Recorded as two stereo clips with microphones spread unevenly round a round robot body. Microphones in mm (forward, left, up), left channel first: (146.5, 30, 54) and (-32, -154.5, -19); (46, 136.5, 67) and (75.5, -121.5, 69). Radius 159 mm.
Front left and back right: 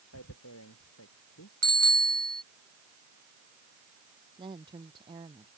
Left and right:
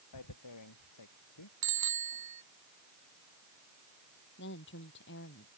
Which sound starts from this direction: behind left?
A woman speaking, at 4.4 s.